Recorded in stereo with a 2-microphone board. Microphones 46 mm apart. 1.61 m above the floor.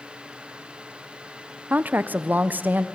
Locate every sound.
1.7 s a woman speaking: 40° right (ahead or behind), 0.5 m